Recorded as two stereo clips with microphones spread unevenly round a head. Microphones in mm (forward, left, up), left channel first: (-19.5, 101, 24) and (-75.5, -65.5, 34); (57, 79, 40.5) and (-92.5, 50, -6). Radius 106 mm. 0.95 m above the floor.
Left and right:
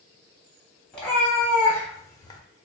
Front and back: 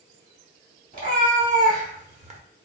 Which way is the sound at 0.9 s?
155° left.